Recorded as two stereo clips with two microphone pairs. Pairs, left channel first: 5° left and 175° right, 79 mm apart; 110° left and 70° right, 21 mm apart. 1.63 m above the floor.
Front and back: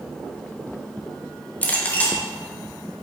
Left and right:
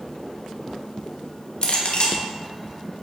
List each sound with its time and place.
1.6 s a clink: 75° left, 2 m